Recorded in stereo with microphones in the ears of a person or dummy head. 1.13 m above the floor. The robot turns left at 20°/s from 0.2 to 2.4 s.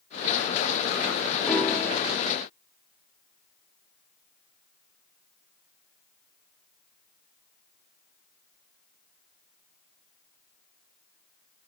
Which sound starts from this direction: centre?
A piano, at 1.4 s.